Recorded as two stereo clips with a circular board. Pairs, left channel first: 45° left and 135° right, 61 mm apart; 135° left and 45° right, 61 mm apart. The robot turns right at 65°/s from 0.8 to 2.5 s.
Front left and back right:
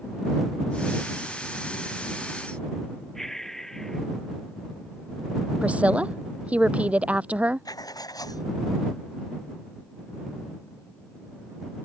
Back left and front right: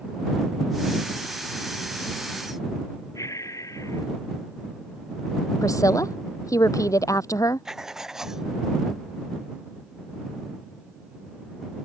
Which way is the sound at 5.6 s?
155° left.